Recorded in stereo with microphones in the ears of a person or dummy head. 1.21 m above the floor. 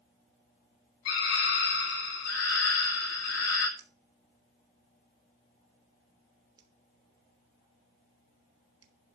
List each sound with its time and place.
1.1 s a scream: 75° left (ahead or behind), 5.5 m
3.8 s a finger snap: 25° right (ahead or behind), 3 m